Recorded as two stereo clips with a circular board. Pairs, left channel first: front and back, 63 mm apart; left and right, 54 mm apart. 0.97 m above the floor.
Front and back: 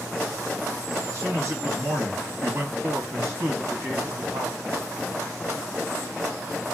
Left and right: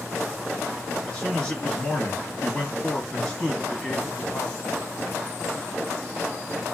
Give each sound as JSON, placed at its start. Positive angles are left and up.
{"t": 1.1, "sound": "a man speaking", "azimuth_deg": 160, "distance_m": 1.3}